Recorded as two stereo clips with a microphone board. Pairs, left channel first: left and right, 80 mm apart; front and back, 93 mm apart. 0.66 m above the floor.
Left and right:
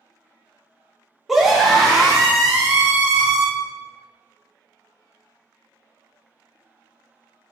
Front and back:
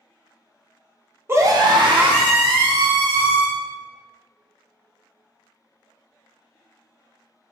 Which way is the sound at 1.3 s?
170° right.